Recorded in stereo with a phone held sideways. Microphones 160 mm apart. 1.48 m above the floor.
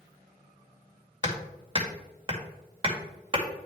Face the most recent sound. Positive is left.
turn(degrees=-30)  # may be behind; listen again after turning